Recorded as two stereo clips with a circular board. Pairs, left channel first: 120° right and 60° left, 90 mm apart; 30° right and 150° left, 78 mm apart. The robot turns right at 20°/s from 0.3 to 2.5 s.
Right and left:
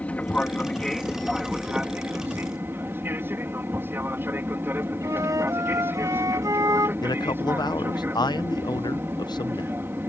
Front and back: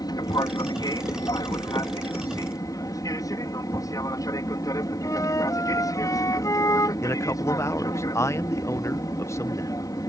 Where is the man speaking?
80° right.